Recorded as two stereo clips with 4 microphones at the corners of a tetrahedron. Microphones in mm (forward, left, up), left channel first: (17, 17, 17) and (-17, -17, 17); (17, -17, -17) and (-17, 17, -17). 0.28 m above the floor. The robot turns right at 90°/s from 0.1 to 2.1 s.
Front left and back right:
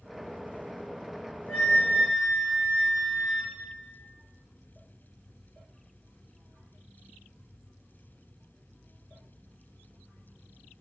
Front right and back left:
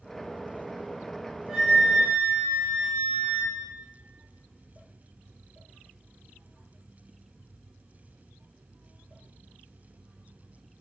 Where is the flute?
50° left, 1.5 m; by 3.5 s 105° left, 1.5 m.